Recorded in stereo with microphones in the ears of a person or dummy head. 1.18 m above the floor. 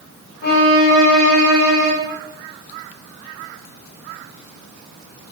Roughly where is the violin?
Left.